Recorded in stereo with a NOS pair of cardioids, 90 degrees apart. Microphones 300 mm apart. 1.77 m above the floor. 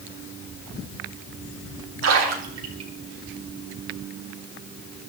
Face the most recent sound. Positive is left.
turn(degrees=-55)